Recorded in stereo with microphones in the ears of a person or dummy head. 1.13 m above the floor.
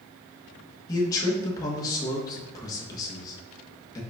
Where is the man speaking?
20° left (ahead or behind), 1.2 m.